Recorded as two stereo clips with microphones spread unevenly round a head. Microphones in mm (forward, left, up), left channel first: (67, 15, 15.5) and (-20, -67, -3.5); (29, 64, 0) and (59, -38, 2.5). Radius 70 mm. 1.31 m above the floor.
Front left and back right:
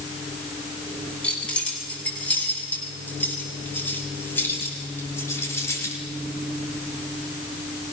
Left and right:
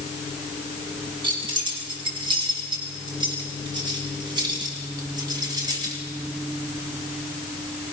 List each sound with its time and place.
1.2 s keys jangling: 35° right, 8.5 m; by 6.0 s 20° right, 6 m